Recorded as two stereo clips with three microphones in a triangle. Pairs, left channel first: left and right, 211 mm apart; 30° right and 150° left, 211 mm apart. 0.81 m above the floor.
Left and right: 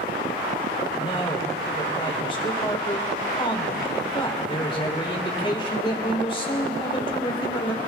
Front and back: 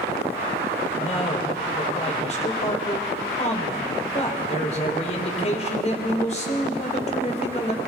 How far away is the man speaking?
About 3 m.